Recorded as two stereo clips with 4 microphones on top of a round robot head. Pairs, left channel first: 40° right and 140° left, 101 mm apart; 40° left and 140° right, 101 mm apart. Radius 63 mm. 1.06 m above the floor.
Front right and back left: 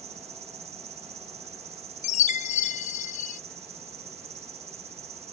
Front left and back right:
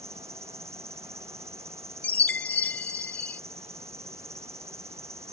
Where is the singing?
No singing in this recording.